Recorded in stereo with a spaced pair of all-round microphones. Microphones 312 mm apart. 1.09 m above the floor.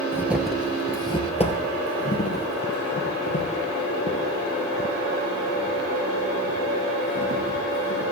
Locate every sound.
0.1 s footsteps: 10° right (ahead or behind), 1.1 m; by 8.0 s 50° left (ahead or behind), 5 m